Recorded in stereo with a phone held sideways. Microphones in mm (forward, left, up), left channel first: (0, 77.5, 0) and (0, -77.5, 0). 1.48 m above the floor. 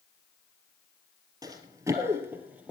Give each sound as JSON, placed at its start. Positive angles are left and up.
{"t": 1.4, "sound": "running footsteps", "side_deg": -25, "distance_m": 1.6}